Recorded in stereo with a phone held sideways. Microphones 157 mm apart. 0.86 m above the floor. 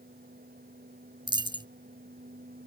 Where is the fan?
70° right (ahead or behind).